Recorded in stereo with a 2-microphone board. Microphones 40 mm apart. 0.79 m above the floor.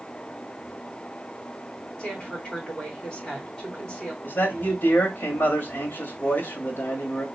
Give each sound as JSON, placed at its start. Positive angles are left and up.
{"t": 2.0, "sound": "a woman speaking", "side_deg": 25, "distance_m": 3.0}
{"t": 4.2, "sound": "a man speaking", "side_deg": 70, "distance_m": 1.7}